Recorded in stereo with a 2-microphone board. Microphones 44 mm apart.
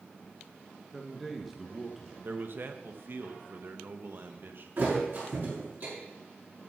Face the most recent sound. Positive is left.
turn(degrees=-50)  # may be behind; listen again after turning